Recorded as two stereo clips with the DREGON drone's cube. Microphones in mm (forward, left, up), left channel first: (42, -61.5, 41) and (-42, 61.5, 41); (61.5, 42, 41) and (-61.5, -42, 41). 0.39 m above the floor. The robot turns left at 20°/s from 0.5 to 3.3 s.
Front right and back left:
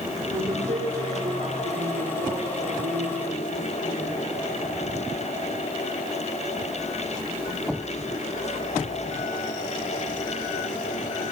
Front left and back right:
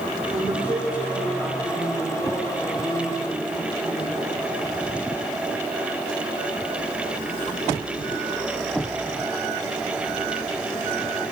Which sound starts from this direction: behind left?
A woman speaking, at 0.3 s.